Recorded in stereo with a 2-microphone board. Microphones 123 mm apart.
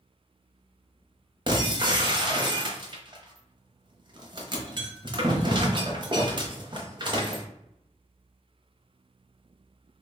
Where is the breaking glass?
40° right (ahead or behind), 0.8 m.